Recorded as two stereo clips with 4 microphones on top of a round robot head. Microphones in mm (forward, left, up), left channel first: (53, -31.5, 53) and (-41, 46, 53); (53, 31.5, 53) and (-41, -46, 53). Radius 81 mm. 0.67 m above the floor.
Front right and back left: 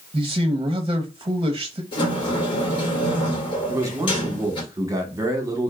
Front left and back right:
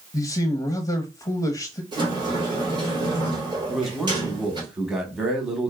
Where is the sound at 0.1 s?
95° left, 0.7 m.